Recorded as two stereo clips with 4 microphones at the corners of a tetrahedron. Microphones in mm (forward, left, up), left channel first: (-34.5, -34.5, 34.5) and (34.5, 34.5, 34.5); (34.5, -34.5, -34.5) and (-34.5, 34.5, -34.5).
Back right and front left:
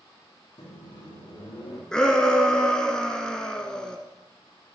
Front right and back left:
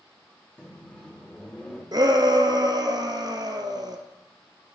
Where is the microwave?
115° right, 4.5 m.